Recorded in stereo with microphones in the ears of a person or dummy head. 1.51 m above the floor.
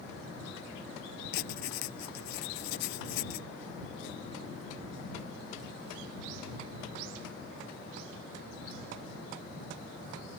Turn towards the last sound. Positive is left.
turn(degrees=70)  # may be behind; listen again after turning